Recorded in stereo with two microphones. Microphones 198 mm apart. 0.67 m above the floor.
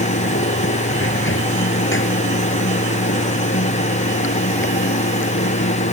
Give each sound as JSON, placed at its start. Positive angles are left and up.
{"t": 0.0, "sound": "running water", "side_deg": 80}